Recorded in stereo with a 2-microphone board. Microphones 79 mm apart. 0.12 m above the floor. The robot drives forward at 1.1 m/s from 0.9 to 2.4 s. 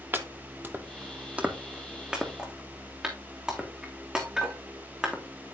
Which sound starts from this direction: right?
Chopping, at 0.1 s.